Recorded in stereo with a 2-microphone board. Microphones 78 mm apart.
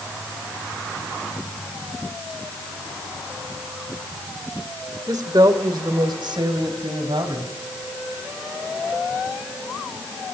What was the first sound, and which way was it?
A woman speaking, 55° right (ahead or behind).